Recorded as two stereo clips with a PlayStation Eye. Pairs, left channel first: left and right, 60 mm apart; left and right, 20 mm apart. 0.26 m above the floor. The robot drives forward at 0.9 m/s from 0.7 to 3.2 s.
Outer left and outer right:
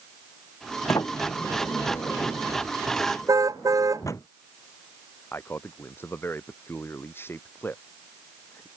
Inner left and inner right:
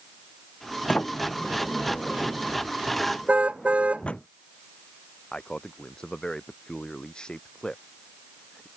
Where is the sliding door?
70° left (ahead or behind); by 4.3 s 60° left (ahead or behind).